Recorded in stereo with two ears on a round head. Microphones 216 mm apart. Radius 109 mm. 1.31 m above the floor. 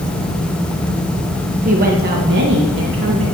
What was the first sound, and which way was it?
A woman speaking, 35° right (ahead or behind).